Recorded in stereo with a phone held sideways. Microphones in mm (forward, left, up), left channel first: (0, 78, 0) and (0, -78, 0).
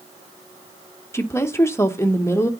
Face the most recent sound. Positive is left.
turn(degrees=15)  # may be behind; listen again after turning